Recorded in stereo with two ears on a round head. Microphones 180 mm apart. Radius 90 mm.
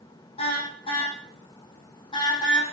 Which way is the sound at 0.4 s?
30° left (ahead or behind).